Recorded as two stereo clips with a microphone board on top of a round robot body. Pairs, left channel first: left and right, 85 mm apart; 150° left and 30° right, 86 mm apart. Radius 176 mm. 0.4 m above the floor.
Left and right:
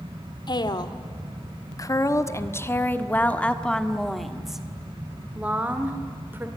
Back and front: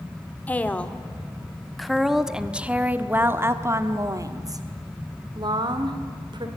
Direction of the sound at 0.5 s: 80° left.